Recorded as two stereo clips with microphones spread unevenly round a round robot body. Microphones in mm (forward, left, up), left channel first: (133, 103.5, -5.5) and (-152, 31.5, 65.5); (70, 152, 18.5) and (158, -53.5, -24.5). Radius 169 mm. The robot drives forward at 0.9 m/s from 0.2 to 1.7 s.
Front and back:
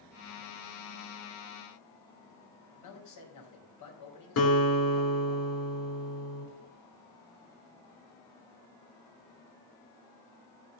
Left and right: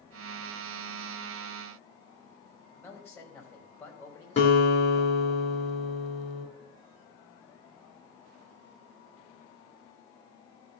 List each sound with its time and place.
2.8 s a man speaking: 35° left, 5 m
4.4 s a guitar: 55° left, 4.5 m